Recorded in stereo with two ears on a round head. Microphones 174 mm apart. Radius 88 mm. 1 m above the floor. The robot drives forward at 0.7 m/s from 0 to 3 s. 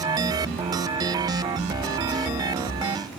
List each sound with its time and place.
Only background noise.